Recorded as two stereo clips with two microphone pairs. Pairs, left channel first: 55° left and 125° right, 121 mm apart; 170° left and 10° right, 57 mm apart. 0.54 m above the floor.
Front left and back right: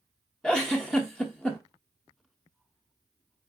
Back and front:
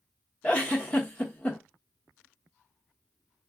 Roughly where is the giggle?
Behind left.